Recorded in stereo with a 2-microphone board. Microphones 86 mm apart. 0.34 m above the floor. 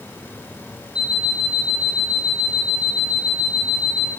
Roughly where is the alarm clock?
Centre.